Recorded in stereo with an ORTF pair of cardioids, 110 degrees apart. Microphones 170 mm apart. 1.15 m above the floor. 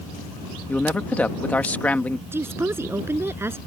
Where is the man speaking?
10° left.